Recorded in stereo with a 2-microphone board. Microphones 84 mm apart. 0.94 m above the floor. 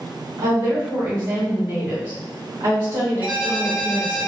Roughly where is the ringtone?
Right.